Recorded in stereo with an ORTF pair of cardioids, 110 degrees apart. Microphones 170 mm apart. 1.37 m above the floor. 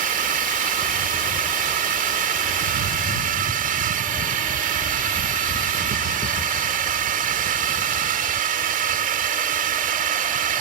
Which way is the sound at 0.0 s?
55° right.